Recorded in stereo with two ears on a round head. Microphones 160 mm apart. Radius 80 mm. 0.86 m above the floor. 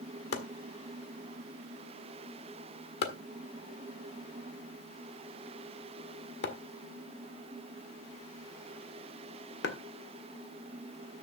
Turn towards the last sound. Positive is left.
turn(degrees=70)  # may be behind; listen again after turning